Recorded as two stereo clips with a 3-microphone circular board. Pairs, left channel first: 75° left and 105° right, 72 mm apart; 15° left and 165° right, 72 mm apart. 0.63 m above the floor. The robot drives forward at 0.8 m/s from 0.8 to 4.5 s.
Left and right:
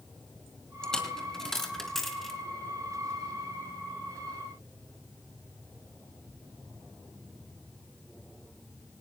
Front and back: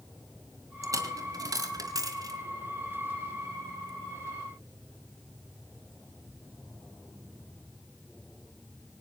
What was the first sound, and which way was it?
A dropped coin, 155° left.